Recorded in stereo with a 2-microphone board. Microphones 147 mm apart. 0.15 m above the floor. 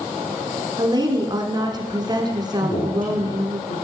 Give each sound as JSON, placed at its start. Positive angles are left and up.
{"t": 0.8, "sound": "a woman speaking", "side_deg": -30, "distance_m": 1.5}
{"t": 2.6, "sound": "a man speaking", "side_deg": 75, "distance_m": 7.0}